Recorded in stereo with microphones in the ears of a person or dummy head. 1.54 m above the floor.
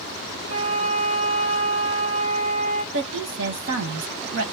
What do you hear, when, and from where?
0.5 s a flute: 45° right (ahead or behind), 1.8 m
2.9 s a woman speaking: 75° right (ahead or behind), 1.2 m